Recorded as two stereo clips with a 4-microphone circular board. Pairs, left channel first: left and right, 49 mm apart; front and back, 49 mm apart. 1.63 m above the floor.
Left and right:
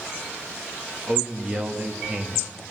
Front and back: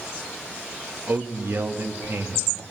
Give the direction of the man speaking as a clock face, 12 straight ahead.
5 o'clock.